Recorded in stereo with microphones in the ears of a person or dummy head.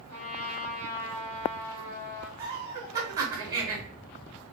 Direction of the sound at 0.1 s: 45° left (ahead or behind).